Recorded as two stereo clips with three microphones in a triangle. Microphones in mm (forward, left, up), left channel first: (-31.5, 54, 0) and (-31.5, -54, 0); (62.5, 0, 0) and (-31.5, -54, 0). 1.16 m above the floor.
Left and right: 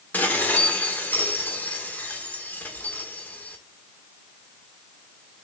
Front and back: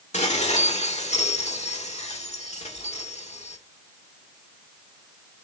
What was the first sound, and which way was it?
Dishes clattering, 15° left.